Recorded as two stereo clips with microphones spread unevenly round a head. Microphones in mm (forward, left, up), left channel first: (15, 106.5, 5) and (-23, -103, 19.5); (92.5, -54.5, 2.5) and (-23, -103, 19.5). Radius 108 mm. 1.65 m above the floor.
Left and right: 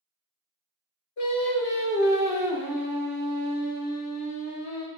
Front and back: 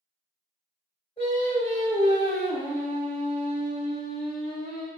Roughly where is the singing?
Left.